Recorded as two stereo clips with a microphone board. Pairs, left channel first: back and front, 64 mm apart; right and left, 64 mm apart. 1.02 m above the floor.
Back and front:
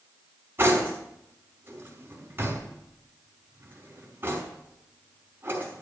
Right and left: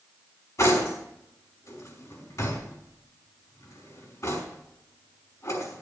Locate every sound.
0.6 s cutlery clinking: 55° right, 4.5 m